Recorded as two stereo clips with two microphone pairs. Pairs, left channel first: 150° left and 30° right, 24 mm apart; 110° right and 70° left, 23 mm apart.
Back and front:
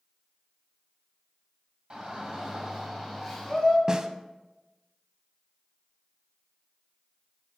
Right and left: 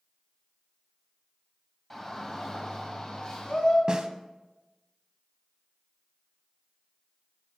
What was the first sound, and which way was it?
A shout, 45° right.